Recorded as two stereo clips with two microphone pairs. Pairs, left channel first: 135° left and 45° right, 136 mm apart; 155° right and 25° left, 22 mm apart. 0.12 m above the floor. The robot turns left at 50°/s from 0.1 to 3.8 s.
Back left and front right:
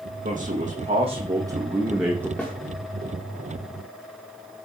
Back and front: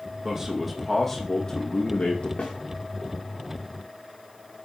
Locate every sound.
0.2 s a man speaking: 45° right, 5.5 m; by 2.3 s 150° right, 5.5 m
2.4 s a snare drum: 150° right, 6 m; by 2.5 s 160° right, 6 m